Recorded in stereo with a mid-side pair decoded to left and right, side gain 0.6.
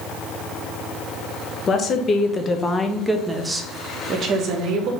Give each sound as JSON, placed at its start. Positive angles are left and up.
{"t": 1.7, "sound": "a woman speaking", "azimuth_deg": 40, "distance_m": 1.2}